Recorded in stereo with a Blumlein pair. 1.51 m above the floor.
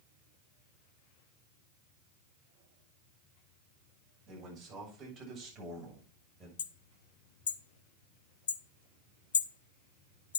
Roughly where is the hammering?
Ahead left.